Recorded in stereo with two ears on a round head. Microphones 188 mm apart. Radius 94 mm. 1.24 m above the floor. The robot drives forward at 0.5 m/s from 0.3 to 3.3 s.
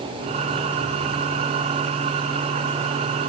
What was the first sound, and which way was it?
Only background noise.